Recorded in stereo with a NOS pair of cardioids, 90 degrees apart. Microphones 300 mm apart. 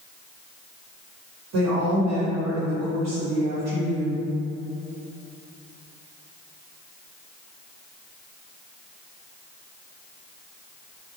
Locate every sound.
1.5 s a woman speaking: 65° right, 1.2 m